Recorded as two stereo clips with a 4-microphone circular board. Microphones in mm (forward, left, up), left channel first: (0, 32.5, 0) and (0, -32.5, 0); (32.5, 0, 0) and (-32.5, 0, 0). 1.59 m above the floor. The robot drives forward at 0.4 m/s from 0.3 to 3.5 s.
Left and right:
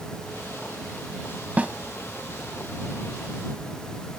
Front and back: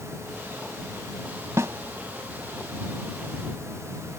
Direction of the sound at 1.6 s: 155° right.